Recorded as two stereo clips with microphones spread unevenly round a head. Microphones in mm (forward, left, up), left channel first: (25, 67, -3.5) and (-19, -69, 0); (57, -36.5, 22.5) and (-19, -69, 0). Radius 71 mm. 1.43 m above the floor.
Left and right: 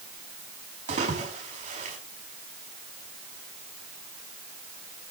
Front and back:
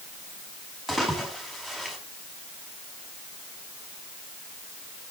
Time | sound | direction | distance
0.9 | a splash | 65° right | 6 m